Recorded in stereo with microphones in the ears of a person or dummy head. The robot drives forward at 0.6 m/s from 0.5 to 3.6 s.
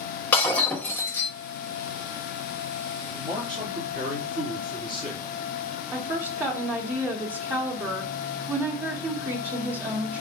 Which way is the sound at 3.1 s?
35° right (ahead or behind).